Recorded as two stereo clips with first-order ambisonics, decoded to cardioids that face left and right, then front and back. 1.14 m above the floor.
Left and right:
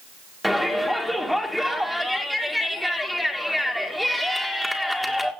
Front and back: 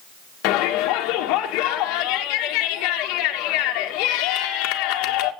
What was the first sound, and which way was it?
A shout, straight ahead.